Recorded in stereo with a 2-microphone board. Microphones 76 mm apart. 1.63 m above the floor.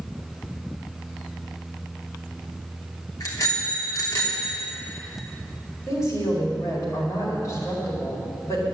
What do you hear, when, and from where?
3.2 s a bicycle bell: 50° left (ahead or behind), 3 m
5.9 s a woman speaking: 45° left (ahead or behind), 5 m